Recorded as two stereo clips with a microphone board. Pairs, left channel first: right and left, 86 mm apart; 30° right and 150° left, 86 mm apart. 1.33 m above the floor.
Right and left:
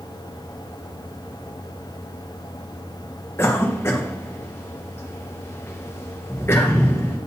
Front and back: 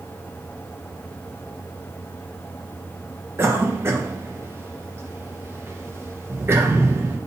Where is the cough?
150° right, 1.2 m.